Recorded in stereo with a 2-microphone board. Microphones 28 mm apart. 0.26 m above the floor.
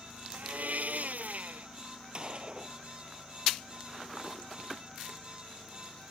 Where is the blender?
65° right (ahead or behind).